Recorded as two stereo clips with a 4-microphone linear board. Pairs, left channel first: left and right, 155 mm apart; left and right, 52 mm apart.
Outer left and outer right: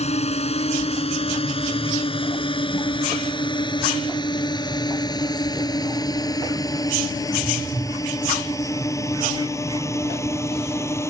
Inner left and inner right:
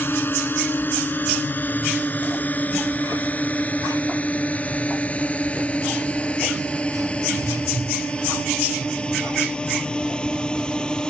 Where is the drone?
45° left (ahead or behind); by 11.1 s 15° left (ahead or behind).